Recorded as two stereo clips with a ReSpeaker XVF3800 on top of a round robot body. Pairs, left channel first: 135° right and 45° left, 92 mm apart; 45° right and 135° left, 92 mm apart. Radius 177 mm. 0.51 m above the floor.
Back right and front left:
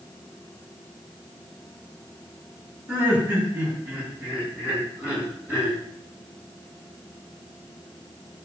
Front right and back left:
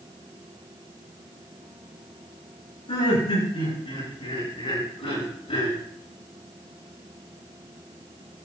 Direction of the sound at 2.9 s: 25° right.